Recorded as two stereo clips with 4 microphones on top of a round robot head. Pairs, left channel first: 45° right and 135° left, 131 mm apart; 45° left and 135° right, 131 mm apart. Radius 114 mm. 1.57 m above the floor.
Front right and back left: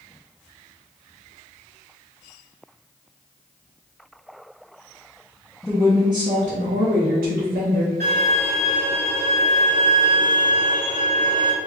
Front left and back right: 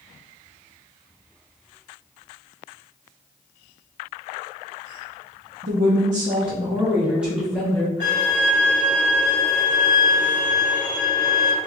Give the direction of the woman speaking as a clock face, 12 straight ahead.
5 o'clock.